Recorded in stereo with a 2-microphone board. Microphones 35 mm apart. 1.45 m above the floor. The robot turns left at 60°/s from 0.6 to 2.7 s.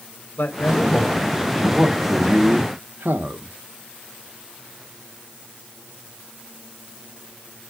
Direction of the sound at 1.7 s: 20° right.